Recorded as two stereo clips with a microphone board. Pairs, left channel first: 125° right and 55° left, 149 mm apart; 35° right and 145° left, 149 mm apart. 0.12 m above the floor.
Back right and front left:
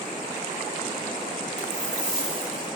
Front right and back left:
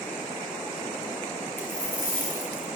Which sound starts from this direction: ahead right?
A dropped coin, at 1.6 s.